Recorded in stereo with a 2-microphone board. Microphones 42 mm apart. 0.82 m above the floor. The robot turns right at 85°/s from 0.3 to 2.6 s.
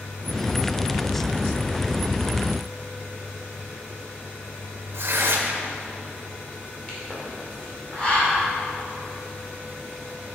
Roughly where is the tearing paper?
Right.